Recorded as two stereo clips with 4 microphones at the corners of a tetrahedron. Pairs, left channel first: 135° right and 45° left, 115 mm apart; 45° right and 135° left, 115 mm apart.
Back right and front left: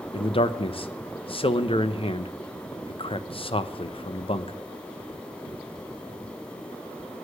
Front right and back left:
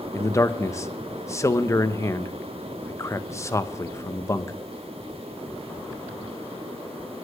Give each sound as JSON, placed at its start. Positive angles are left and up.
{"t": 0.1, "sound": "a man speaking", "azimuth_deg": -105, "distance_m": 0.8}